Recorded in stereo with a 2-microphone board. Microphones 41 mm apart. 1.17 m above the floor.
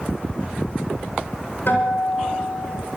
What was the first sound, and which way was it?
A guitar, 70° left (ahead or behind).